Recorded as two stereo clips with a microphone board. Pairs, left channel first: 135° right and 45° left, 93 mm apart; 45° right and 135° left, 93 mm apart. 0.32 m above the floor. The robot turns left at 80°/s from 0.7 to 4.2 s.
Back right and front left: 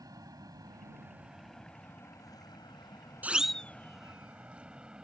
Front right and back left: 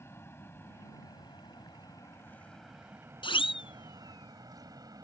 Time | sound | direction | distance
0.0 | an aircraft | 10° left | ?
3.2 | a siren | 25° right | ?